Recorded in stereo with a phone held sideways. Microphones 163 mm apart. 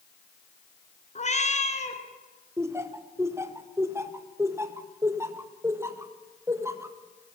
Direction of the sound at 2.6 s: 15° right (ahead or behind).